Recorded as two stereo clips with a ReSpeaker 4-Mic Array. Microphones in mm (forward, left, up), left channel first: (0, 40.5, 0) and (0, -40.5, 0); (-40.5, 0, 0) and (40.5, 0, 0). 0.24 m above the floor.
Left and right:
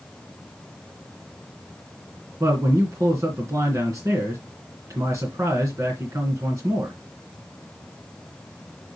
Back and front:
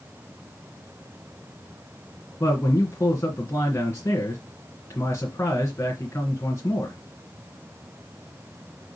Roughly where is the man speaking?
Behind right.